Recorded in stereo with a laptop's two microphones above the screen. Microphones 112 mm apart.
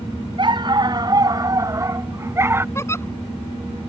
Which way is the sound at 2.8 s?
25° left (ahead or behind).